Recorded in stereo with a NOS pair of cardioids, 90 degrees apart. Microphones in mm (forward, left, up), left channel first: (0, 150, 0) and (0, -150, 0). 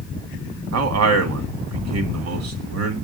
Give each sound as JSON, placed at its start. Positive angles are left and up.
{"t": 0.7, "sound": "a man speaking", "azimuth_deg": -60, "distance_m": 2.0}